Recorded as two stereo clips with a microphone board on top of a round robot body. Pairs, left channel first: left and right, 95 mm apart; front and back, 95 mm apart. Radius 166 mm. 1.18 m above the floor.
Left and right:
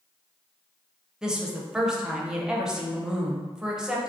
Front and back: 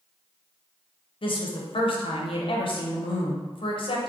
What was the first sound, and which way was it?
A woman speaking, 5° right.